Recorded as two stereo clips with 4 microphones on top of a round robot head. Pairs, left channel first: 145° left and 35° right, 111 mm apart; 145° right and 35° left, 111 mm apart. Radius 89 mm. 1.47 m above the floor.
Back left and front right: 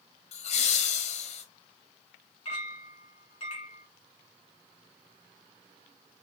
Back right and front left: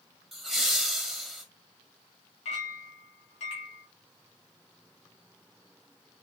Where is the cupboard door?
I don't hear a cupboard door.